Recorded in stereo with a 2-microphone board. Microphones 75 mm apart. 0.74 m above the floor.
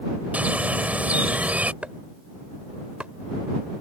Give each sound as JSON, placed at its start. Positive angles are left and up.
{"t": 0.3, "sound": "a bird", "side_deg": -20}
{"t": 1.8, "sound": "chopping", "side_deg": -20}